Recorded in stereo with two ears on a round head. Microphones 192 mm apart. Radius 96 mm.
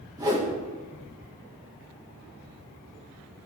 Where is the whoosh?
20° right (ahead or behind), 1.8 m.